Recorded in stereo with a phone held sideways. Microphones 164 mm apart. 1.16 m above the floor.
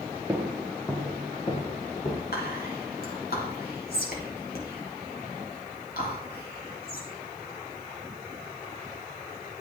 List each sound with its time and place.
0.3 s footsteps: 10° right (ahead or behind), 1.3 m; by 2.2 s 50° left (ahead or behind), 1.9 m
2.3 s whispering: 70° left (ahead or behind), 3 m